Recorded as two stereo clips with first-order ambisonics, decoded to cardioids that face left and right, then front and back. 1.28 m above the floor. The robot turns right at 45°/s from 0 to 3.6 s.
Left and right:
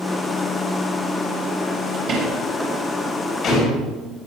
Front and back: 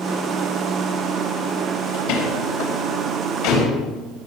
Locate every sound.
1.9 s a door slam: 40° right, 5 m; by 3.7 s 35° left, 5 m